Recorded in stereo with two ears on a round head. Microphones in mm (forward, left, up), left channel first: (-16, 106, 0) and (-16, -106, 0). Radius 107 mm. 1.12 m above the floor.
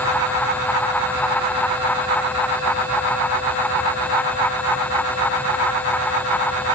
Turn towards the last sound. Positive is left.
No sound to turn to.